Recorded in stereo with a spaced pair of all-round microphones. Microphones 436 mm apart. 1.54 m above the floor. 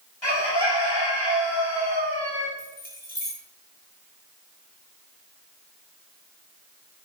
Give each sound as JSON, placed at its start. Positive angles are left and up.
{"t": 0.2, "sound": "a bird", "side_deg": 75, "distance_m": 3.5}
{"t": 2.6, "sound": "keys jangling", "side_deg": 20, "distance_m": 7.0}